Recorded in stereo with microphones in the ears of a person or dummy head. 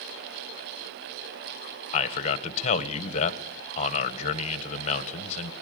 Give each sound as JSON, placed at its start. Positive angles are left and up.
{"t": 1.9, "sound": "a man speaking", "side_deg": 35, "distance_m": 1.5}